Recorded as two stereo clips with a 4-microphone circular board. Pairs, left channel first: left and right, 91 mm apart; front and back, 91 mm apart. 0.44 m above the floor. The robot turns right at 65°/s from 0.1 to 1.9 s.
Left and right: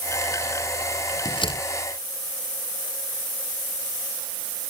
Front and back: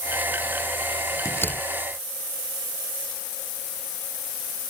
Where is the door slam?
55° left; by 1.6 s 80° left.